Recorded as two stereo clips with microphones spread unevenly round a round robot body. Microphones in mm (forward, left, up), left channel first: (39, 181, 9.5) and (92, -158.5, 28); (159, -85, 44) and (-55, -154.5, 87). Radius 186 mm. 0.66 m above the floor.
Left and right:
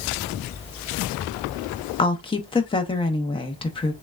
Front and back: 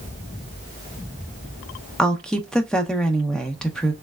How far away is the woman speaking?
About 0.6 m.